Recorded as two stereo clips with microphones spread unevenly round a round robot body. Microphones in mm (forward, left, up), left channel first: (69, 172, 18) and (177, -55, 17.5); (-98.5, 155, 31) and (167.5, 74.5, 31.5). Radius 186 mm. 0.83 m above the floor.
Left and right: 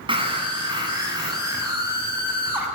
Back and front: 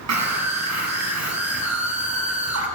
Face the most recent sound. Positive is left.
turn(degrees=20)